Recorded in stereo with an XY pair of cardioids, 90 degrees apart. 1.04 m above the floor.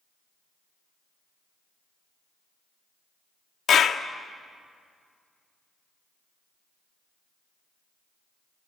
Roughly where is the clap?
Ahead left.